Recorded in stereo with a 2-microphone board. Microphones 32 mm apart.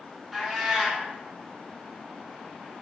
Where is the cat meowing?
5° right (ahead or behind), 0.7 m.